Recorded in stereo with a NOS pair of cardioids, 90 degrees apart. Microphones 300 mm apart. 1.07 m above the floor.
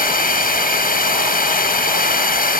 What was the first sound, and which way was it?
A drone, 30° left.